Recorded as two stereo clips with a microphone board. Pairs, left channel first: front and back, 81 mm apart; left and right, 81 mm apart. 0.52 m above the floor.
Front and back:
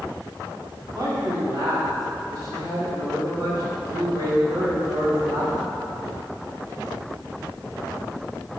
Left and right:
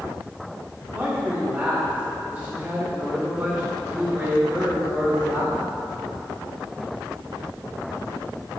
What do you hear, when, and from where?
0.9 s a man speaking: 160° right, 1.7 m